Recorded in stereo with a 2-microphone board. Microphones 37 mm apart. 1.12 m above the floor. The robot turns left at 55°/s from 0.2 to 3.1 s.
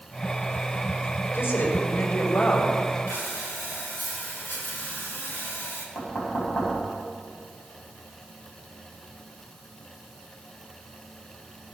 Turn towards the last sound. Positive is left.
turn(degrees=65)  # may be behind; listen again after turning